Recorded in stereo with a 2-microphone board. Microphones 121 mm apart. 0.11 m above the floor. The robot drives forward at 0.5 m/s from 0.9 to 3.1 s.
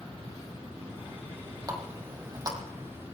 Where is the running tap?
30° right (ahead or behind), 3 m; by 2.6 s 35° right (ahead or behind), 3 m.